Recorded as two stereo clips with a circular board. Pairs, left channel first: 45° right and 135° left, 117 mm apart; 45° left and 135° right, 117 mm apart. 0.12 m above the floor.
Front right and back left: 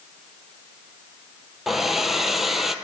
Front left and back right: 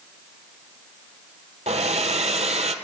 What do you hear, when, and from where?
1.7 s a hair dryer: 140° right, 0.7 m